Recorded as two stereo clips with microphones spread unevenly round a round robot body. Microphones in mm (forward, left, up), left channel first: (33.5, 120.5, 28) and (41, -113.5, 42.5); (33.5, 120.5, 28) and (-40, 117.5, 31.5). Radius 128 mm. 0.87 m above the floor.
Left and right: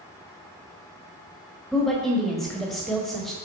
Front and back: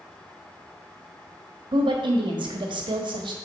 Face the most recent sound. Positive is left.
turn(degrees=180)